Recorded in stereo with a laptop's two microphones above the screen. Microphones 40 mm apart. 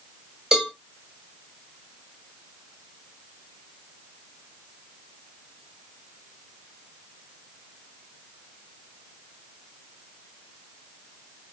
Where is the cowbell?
15° right (ahead or behind), 2.5 m.